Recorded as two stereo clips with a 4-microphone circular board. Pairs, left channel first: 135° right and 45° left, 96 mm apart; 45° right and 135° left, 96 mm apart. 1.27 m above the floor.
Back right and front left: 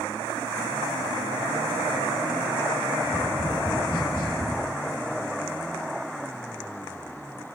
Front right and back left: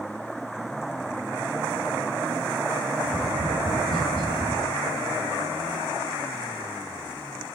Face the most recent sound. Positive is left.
turn(degrees=100)